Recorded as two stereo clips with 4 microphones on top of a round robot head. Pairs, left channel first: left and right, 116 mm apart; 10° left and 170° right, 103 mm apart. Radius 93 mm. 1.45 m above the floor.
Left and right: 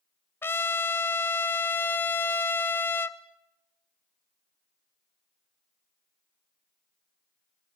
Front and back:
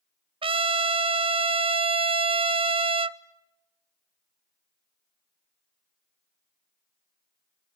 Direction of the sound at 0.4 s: 160° left.